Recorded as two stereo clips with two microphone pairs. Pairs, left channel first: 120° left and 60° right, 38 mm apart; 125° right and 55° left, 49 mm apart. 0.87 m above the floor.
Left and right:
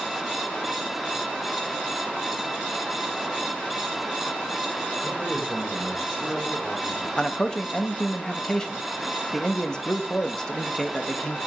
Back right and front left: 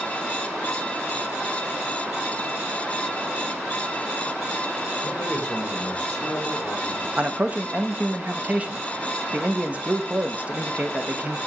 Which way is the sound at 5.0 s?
175° left.